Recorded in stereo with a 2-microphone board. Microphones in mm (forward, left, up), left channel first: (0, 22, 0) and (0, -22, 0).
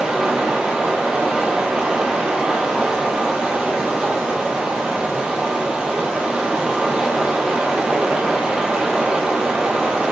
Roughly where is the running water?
Right.